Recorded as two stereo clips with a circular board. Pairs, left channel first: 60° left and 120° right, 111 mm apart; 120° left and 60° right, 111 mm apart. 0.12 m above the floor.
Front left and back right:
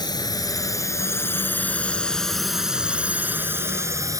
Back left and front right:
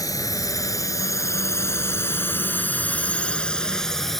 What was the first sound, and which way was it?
A drone, 85° left.